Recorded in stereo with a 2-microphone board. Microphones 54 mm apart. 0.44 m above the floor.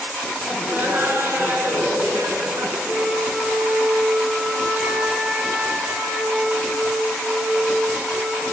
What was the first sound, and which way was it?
Laughter, 40° right (ahead or behind).